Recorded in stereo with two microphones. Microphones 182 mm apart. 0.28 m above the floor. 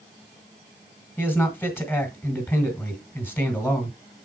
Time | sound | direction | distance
1.2 | a man speaking | 10° left (ahead or behind) | 2 m